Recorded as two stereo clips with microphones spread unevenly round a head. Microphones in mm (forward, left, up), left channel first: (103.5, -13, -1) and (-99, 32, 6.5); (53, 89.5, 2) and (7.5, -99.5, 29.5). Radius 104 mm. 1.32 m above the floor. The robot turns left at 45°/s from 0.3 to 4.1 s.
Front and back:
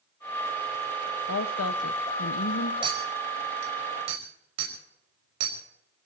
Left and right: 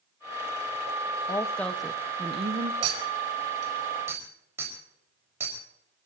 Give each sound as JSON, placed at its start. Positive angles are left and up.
{"t": 1.3, "sound": "a woman speaking", "azimuth_deg": 10, "distance_m": 1.2}
{"t": 2.8, "sound": "a clink", "azimuth_deg": -125, "distance_m": 4.5}